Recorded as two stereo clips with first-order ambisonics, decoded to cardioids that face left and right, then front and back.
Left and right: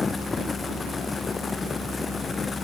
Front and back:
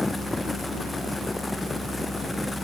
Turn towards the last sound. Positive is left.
No sound to turn to.